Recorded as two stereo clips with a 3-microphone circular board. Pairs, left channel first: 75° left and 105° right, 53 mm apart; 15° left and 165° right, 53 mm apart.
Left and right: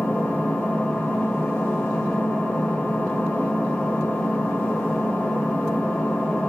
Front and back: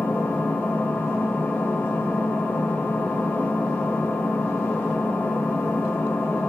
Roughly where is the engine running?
Ahead left.